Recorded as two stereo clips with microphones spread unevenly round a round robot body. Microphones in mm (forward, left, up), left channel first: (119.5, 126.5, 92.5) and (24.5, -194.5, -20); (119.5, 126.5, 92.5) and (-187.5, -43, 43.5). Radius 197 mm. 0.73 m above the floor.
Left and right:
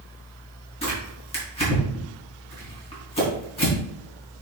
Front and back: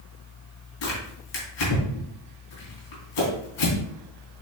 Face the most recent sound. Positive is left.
turn(degrees=0)